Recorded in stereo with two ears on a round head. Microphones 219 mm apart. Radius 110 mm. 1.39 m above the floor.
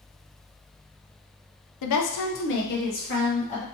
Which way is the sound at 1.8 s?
80° left.